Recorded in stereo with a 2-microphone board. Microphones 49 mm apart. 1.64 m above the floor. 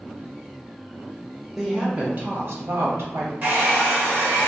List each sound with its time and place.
1.6 s a woman speaking: 10° right (ahead or behind), 0.9 m; by 3.3 s 60° right (ahead or behind), 1.3 m
3.4 s a hair dryer: 45° right (ahead or behind), 1.3 m